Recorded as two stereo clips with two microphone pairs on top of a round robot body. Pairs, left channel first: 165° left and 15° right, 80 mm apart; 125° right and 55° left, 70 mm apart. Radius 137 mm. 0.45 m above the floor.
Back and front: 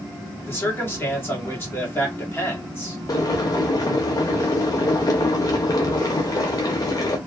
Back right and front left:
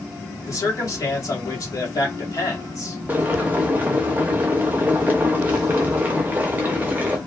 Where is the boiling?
125° left, 0.7 m.